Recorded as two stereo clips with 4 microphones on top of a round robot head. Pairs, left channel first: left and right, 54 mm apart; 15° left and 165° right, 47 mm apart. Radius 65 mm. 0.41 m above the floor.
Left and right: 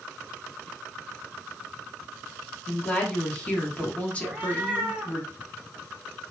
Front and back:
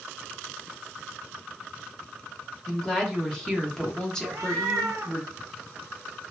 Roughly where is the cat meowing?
Behind right.